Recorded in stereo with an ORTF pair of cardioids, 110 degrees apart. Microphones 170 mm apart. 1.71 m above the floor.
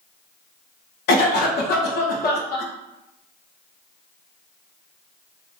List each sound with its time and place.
1.1 s a cough: 70° left, 1.0 m